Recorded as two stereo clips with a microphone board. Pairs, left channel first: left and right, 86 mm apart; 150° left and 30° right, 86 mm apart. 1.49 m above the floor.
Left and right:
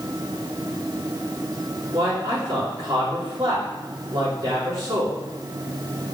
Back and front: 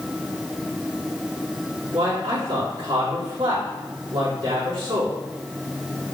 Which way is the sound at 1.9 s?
50° right.